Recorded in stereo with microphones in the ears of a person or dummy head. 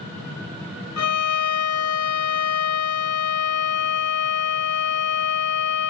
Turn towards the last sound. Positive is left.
turn(degrees=75)  # may be behind; listen again after turning